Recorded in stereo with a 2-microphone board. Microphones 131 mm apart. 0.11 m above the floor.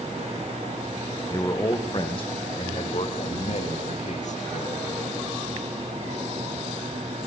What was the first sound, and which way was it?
A man speaking, 30° left (ahead or behind).